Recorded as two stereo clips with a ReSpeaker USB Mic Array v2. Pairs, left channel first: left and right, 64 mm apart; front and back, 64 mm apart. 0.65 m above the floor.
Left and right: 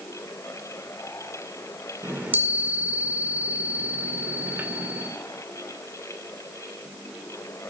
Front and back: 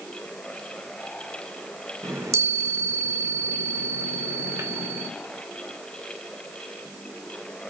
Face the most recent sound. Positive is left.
turn(degrees=-150)